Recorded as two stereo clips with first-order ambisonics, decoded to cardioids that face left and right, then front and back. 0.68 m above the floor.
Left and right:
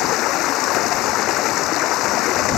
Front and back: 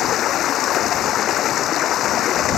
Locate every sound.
0.0 s running water: 50° left